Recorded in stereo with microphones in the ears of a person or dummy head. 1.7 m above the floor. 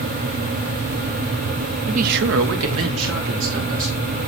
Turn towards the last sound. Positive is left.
turn(degrees=-65)  # may be behind; listen again after turning